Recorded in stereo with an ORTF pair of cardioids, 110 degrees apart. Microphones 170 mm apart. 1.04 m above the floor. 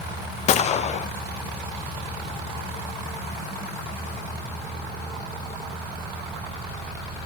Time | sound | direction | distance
0.5 | a gunshot | 40° left | 0.5 m